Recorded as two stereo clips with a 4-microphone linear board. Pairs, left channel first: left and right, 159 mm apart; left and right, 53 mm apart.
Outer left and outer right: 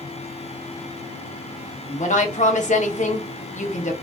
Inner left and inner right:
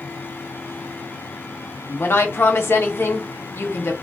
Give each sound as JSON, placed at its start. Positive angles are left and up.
{"t": 1.9, "sound": "a woman speaking", "side_deg": 55, "distance_m": 0.8}